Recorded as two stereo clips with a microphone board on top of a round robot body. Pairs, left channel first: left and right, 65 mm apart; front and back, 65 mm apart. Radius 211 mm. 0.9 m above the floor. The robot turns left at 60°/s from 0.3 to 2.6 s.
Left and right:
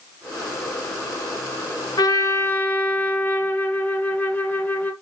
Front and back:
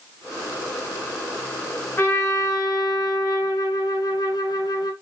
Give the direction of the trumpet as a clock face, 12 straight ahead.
10 o'clock.